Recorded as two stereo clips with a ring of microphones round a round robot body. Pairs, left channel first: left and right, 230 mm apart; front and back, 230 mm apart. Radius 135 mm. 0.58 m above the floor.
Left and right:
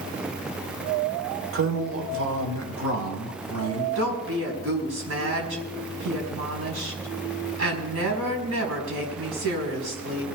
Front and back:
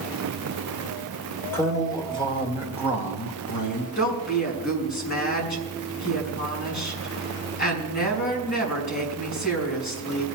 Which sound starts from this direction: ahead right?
A woman speaking, at 4.0 s.